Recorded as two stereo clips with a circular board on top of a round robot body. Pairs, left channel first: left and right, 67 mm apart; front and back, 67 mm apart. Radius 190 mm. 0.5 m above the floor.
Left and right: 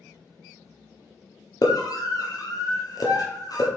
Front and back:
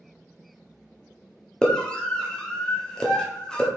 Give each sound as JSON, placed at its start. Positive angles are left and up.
{"t": 1.6, "sound": "a scream", "azimuth_deg": 80, "distance_m": 1.3}